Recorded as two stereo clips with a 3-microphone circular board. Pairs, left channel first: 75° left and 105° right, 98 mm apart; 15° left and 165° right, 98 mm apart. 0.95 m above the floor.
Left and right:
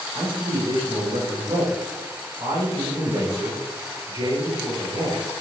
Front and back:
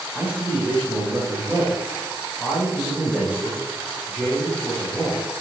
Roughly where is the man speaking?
Right.